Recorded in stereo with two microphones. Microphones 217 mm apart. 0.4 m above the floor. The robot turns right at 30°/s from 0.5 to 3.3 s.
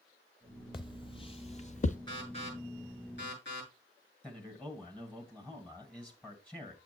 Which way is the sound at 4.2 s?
5° left (ahead or behind).